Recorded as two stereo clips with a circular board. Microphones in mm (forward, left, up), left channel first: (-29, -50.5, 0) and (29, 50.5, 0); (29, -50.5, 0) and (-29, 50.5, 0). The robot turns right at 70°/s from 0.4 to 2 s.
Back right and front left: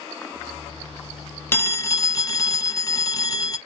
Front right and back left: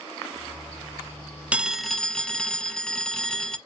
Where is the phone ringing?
170° right, 0.7 m; by 3.6 s 140° right, 0.7 m.